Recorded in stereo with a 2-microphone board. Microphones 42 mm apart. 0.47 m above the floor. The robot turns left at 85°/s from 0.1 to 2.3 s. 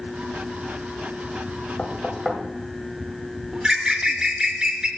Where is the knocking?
30° left (ahead or behind), 1.4 m; by 2.4 s 10° right (ahead or behind), 1.4 m.